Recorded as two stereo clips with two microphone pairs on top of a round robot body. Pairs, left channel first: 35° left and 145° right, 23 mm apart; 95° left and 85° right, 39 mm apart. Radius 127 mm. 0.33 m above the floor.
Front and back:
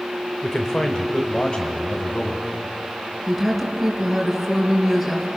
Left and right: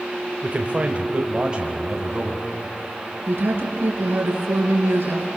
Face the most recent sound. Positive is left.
turn(degrees=-55)